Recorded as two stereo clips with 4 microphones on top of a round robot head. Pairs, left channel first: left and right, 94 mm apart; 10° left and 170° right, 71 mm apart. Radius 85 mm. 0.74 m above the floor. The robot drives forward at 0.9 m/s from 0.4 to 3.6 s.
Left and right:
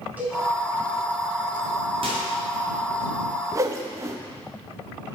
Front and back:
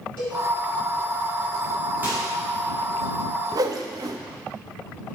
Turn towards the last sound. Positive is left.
turn(degrees=-145)